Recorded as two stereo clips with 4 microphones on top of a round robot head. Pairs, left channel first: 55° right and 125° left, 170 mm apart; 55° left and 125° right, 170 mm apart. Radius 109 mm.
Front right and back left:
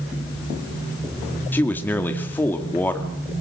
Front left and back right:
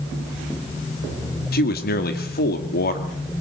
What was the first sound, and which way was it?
A man speaking, 25° left.